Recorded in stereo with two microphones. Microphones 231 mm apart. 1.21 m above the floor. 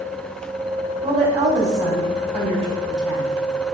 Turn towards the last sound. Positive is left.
turn(degrees=-30)  # may be behind; listen again after turning